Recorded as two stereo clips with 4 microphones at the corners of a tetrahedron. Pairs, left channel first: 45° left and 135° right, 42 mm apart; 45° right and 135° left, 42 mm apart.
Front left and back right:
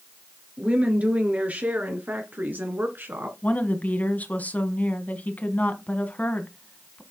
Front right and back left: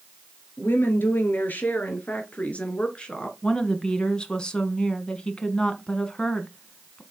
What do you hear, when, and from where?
0.6 s a woman speaking: 75° right, 3.5 m; by 3.3 s 115° right, 2.5 m
3.4 s a woman speaking: 15° left, 1.7 m